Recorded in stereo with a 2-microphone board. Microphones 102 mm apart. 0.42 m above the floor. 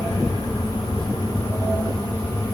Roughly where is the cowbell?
I don't hear a cowbell.